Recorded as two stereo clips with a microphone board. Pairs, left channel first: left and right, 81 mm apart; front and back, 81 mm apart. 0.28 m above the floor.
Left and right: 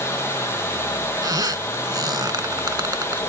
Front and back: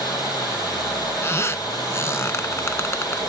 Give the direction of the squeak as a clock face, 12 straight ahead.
2 o'clock.